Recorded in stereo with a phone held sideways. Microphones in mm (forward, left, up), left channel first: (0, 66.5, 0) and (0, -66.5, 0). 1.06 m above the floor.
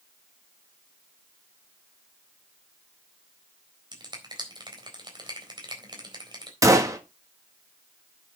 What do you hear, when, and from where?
3.9 s a finger snap: 35° right (ahead or behind), 4 m
6.6 s a gunshot: 25° right (ahead or behind), 1.8 m